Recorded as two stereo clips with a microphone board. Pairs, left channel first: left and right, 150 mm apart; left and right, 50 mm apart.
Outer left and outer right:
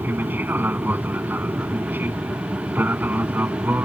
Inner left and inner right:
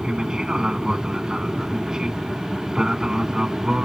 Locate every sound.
0.0 s an aircraft: 10° right (ahead or behind)